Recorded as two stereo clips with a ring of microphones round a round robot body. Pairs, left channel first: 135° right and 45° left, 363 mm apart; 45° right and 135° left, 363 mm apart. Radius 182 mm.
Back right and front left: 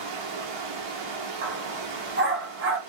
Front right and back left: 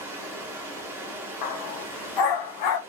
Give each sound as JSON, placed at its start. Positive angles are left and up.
{"t": 0.0, "sound": "running water", "azimuth_deg": 50, "distance_m": 0.9}
{"t": 1.4, "sound": "a dog barking", "azimuth_deg": -15, "distance_m": 0.6}